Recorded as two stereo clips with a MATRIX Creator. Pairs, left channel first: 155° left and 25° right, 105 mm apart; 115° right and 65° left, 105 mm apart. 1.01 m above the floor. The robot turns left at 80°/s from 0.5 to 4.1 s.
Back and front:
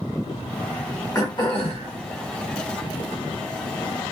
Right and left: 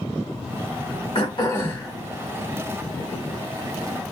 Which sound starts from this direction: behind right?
Throat clearing, at 1.1 s.